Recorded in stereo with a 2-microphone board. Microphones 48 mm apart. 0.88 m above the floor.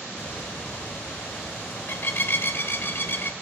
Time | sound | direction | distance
0.2 | a bird | 60° left (ahead or behind) | 0.9 m